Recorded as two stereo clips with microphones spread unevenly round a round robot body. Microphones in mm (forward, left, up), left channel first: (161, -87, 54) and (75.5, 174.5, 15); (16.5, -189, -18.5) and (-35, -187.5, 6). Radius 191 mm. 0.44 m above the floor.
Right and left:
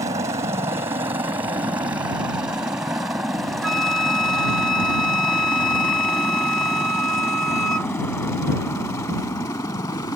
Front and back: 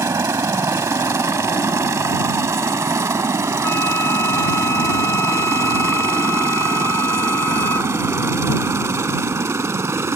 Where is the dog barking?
No dog barking in this recording.